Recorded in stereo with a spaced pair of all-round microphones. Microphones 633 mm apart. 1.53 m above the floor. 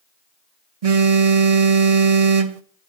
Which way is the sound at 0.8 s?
65° right (ahead or behind).